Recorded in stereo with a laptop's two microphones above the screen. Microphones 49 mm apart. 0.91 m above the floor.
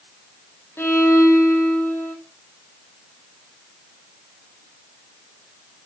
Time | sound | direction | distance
0.8 | a violin | 60° left (ahead or behind) | 2 m